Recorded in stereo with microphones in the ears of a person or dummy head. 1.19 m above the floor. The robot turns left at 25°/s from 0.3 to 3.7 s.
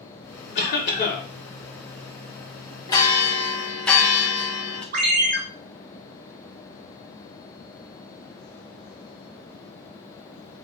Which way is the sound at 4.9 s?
45° right (ahead or behind).